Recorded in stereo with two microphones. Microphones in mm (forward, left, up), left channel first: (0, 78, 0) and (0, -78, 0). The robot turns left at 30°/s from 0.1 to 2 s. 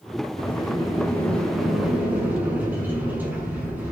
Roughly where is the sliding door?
Ahead left.